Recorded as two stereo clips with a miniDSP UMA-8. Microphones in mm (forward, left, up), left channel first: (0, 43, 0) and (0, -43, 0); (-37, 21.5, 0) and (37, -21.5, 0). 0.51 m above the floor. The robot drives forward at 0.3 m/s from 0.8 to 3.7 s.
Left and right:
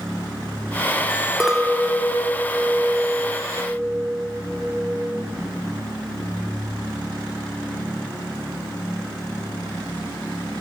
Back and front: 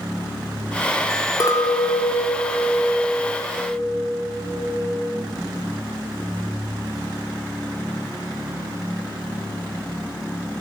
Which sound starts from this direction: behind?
A clink, at 1.4 s.